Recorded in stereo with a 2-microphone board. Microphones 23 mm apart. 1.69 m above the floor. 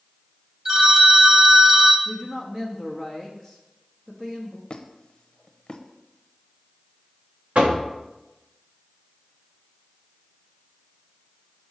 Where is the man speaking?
20° right (ahead or behind), 1.0 m.